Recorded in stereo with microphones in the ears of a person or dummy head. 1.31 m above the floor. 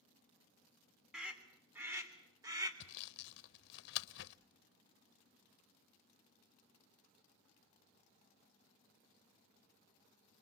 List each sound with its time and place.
1.1 s a scream: centre (ahead or behind), 3 m; by 2.7 s 20° right (ahead or behind), 3.5 m
2.8 s sawing: 65° left (ahead or behind), 0.8 m